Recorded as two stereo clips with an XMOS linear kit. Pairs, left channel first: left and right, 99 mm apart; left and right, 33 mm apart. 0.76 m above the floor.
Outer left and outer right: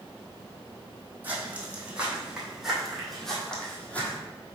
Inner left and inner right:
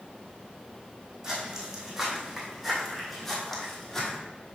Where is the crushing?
No crushing in this recording.